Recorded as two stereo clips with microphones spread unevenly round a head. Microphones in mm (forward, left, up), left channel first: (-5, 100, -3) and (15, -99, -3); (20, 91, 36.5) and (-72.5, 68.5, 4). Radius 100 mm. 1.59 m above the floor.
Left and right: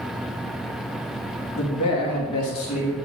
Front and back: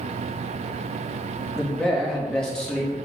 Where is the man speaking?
95° left, 2.5 m.